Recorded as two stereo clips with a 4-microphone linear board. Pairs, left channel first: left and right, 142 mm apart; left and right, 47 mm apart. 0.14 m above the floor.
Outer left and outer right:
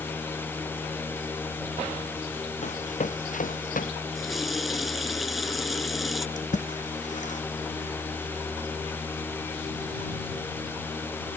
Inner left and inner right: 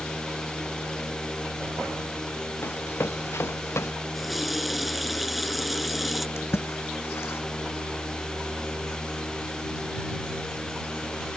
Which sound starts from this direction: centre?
A running tap, at 4.2 s.